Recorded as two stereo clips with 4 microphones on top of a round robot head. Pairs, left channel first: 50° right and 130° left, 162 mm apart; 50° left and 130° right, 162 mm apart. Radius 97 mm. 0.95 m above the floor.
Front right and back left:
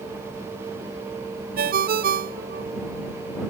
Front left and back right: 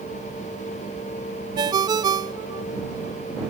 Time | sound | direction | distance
1.6 | a ringtone | 165° left | ?